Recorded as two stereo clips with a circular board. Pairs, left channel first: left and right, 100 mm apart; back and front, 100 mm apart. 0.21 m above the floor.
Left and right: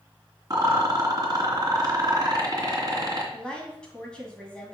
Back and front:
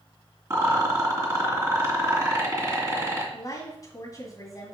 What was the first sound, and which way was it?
A rattle, 55° right.